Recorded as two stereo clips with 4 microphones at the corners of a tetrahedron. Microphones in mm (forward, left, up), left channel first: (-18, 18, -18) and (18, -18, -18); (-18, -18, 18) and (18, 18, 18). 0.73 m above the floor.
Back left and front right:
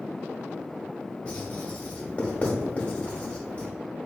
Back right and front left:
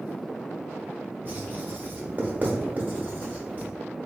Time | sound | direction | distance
1.2 | writing | 80° left | 0.9 m